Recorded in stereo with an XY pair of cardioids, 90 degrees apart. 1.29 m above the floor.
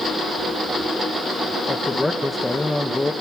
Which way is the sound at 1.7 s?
15° left.